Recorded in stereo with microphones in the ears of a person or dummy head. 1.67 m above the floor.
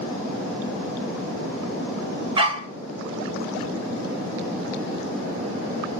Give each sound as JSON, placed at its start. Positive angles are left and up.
{"t": 2.4, "sound": "a dog barking", "side_deg": -30, "distance_m": 2.5}